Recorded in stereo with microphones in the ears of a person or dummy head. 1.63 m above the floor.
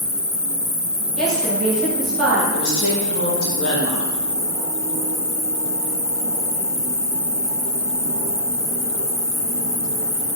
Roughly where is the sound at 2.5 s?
Left.